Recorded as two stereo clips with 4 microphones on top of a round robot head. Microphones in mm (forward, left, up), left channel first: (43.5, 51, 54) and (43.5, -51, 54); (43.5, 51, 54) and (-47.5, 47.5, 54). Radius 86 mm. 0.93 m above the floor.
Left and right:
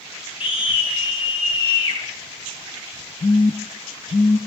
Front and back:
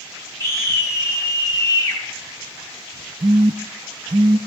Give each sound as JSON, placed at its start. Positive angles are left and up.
{"t": 0.4, "sound": "a scream", "azimuth_deg": 60, "distance_m": 7.5}
{"t": 3.2, "sound": "a phone buzzing", "azimuth_deg": 140, "distance_m": 0.5}